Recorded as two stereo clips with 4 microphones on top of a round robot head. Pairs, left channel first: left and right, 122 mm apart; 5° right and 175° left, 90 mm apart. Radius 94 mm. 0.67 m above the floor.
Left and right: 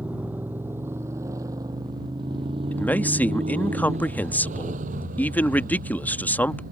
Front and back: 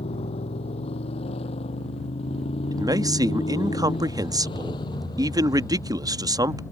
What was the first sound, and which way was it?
A motorcycle, 10° right.